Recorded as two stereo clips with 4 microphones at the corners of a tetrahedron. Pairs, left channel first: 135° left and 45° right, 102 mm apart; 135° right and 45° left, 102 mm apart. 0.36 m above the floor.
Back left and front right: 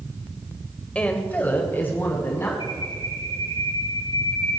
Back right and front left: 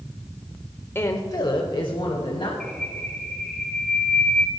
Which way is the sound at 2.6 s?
145° left.